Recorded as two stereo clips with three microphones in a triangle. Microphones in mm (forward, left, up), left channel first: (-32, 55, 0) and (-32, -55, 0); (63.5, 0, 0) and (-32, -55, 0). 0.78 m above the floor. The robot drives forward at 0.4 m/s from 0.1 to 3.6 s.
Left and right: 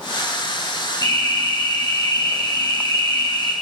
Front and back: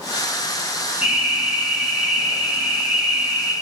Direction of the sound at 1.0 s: 135° left.